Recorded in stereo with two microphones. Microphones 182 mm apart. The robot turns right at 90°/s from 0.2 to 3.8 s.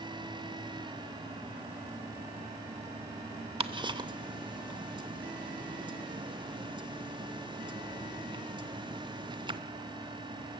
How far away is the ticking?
About 0.6 m.